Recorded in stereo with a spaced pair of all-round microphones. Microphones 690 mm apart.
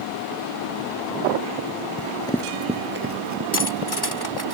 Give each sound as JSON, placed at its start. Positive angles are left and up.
{"t": 2.0, "sound": "running footsteps", "side_deg": 15}
{"t": 3.5, "sound": "cutlery clinking", "side_deg": 35}